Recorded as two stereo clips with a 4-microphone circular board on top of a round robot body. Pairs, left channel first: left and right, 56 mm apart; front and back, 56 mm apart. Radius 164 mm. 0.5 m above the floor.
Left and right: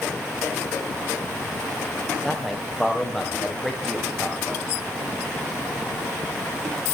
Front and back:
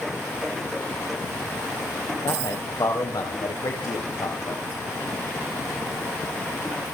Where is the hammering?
No hammering in this recording.